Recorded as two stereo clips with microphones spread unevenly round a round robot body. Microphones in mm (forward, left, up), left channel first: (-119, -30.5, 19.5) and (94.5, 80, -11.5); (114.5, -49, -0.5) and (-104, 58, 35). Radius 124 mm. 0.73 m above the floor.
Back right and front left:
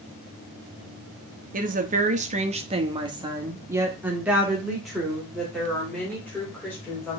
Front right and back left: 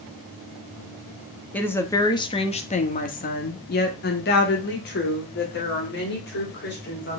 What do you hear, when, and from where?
1.5 s a woman speaking: 45° left, 1.1 m; by 7.2 s 70° right, 3 m